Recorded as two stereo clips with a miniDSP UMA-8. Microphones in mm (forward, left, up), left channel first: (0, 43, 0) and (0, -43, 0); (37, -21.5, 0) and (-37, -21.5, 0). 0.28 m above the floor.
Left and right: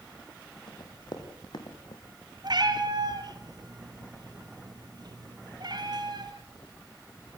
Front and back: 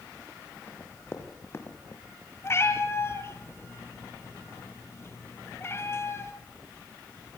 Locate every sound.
0.7 s running footsteps: 60° left, 5 m; by 2.0 s 55° left, 3 m
2.4 s a cat meowing: 55° right, 2.5 m